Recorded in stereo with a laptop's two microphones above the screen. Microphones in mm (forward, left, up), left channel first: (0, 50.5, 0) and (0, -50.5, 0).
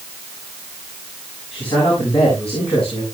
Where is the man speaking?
70° left (ahead or behind), 8 m; by 3.0 s 75° left (ahead or behind), 9 m.